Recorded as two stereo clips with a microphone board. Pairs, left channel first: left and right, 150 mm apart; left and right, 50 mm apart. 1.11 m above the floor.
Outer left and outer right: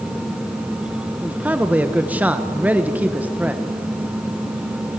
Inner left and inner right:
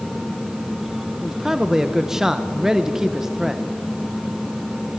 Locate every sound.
1.2 s a man speaking: 10° right (ahead or behind), 1.0 m